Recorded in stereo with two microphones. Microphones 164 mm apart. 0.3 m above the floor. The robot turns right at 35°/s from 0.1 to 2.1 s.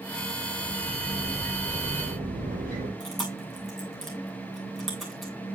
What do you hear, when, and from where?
0.6 s a sliding door: 115° right, 7.5 m; by 2.9 s 60° right, 7.5 m
3.0 s chewing: centre (ahead or behind), 6 m